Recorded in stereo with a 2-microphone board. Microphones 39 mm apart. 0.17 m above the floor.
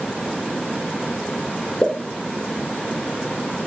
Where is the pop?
20° left (ahead or behind), 1.2 m.